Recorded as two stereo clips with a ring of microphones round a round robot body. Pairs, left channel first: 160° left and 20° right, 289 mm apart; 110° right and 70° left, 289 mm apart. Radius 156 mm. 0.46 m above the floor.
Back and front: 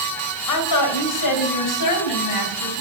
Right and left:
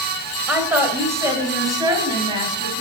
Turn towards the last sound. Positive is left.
turn(degrees=140)